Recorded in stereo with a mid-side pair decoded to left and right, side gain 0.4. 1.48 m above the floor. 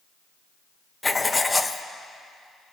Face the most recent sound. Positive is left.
turn(degrees=20)